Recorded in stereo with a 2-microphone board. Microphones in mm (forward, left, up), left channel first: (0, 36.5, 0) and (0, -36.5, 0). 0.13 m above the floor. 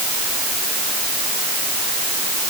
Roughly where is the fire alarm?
I don't hear a fire alarm.